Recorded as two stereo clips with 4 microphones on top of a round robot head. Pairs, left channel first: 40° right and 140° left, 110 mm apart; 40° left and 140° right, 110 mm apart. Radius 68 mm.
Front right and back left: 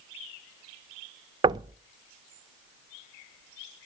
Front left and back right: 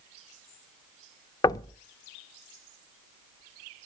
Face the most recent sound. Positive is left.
turn(degrees=95)